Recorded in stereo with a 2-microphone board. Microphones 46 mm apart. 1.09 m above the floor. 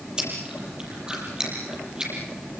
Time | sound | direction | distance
0.2 | chewing | 20° right (ahead or behind) | 7.5 m